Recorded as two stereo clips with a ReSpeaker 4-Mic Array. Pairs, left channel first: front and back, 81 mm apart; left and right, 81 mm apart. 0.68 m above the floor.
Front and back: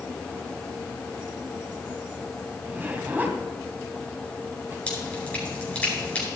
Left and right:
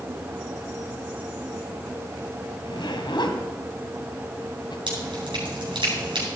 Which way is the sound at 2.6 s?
110° left.